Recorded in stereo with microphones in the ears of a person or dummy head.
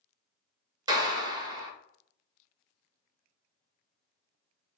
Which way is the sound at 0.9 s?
20° right (ahead or behind).